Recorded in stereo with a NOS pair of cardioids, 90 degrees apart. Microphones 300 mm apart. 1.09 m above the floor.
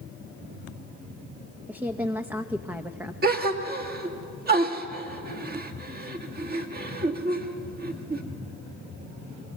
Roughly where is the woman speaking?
Ahead.